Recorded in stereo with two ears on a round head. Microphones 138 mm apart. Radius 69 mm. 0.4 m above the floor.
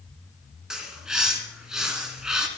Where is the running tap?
I don't hear a running tap.